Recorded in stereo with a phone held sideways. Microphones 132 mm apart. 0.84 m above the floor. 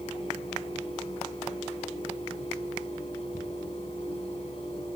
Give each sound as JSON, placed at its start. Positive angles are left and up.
{"t": 0.0, "sound": "a fan", "side_deg": 45, "distance_m": 7.5}